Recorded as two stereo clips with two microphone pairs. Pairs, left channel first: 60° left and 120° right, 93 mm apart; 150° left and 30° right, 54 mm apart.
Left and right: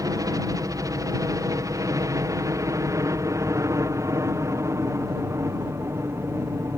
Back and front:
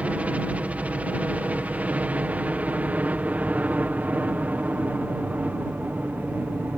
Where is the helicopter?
85° right; by 6.8 s 70° right.